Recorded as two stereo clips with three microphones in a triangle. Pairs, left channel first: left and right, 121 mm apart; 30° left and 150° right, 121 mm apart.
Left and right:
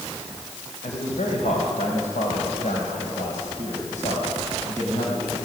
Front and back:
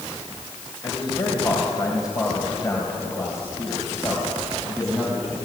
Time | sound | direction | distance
0.8 | a man speaking | 80° left | 3.5 m